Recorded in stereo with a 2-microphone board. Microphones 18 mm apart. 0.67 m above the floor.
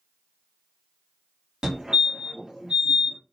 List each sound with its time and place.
1.6 s a fire alarm: 45° right (ahead or behind), 2.5 m